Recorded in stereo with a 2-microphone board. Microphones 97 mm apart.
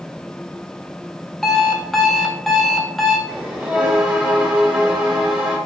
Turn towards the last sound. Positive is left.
turn(degrees=-10)  # may be behind; listen again after turning